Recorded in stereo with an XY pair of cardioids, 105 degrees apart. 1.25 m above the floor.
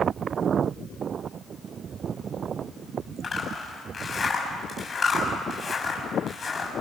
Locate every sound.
3.2 s a zipper: 35° left, 6.5 m